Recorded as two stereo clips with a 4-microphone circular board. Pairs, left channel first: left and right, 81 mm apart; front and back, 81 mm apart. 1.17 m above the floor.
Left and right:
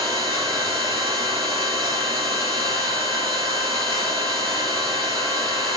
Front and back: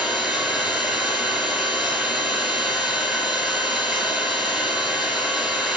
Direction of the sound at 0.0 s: 95° right.